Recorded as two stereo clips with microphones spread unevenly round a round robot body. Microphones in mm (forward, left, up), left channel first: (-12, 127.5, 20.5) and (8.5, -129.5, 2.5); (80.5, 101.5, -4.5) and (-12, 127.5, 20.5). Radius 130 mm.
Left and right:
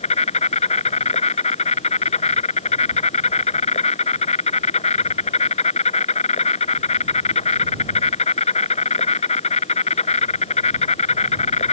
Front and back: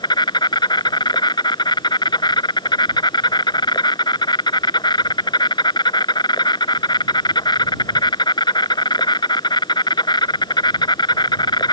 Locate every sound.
0.0 s an insect: 30° left